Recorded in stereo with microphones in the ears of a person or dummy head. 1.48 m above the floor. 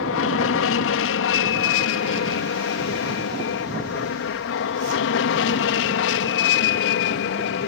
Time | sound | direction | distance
0.0 | an aircraft | 65° left (ahead or behind) | ?